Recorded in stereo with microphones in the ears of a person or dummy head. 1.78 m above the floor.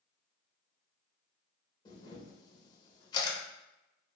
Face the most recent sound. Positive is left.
turn(degrees=25)  # may be behind; listen again after turning